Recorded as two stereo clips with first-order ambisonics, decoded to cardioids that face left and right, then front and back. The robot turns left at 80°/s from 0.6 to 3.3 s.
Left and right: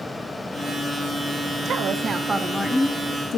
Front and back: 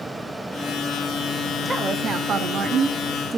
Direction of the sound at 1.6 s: 110° right.